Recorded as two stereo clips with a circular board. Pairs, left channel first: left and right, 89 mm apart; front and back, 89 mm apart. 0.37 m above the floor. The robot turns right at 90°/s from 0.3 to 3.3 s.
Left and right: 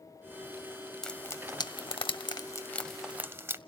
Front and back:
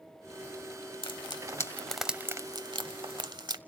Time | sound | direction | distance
1.0 | frying | 5° left | 0.7 m